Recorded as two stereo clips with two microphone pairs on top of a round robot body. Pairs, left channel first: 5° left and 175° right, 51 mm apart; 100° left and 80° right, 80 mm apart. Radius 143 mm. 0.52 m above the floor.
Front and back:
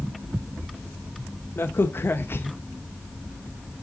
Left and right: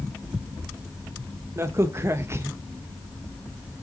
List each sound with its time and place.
1.6 s a crack: 35° right, 1.0 m